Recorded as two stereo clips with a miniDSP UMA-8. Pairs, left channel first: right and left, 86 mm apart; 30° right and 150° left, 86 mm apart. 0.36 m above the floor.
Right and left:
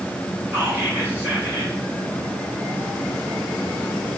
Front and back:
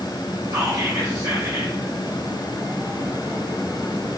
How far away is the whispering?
About 1.5 m.